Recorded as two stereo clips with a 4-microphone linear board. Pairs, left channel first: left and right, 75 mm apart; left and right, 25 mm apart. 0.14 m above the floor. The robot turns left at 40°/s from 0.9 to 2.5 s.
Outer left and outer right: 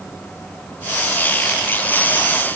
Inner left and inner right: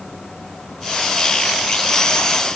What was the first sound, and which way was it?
Only background noise.